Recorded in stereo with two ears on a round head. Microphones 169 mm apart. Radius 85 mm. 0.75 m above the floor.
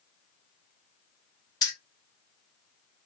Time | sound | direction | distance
1.6 | keys jangling | 20° left (ahead or behind) | 0.9 m